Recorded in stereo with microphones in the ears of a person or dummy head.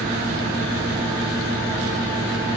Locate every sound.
0.0 s a fan: 45° right (ahead or behind), 1.3 m